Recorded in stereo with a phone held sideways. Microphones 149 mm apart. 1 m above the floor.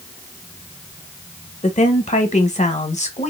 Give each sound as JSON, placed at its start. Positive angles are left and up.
{"t": 1.6, "sound": "a woman speaking", "side_deg": 45, "distance_m": 0.9}